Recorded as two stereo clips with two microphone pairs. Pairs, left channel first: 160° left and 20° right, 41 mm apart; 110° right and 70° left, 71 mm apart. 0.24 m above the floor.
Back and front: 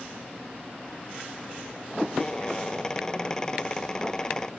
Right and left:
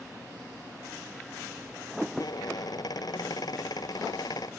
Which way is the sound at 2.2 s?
125° right.